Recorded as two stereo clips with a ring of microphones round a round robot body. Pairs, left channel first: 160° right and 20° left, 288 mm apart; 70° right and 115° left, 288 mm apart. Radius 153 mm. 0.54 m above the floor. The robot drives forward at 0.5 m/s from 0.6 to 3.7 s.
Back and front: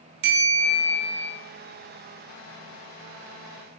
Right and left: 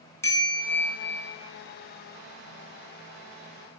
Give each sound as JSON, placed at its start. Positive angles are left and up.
{"t": 0.2, "sound": "a bell", "azimuth_deg": 15, "distance_m": 6.0}